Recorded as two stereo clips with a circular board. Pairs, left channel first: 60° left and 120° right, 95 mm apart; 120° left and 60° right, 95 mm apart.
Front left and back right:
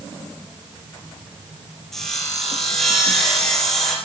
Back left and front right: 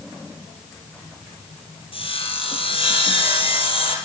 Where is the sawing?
145° left, 4 m.